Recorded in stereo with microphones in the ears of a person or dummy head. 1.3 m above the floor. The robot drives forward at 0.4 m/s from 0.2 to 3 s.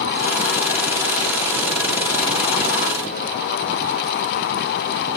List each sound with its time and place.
Only background noise.